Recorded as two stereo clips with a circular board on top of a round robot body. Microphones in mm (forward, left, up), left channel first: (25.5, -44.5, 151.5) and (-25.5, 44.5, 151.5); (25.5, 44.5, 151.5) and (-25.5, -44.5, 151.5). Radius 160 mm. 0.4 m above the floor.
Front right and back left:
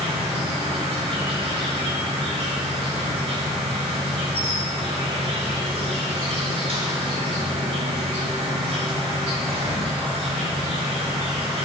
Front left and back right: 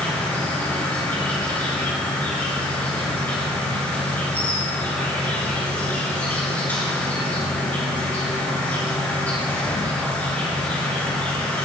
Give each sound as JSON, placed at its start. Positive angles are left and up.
{"t": 0.0, "sound": "an insect", "azimuth_deg": 135, "distance_m": 5.0}